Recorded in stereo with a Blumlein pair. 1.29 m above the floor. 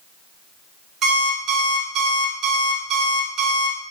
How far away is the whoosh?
I don't hear a whoosh.